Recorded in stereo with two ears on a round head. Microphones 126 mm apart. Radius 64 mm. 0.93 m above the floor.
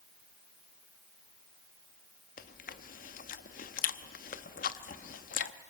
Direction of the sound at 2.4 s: 65° left (ahead or behind).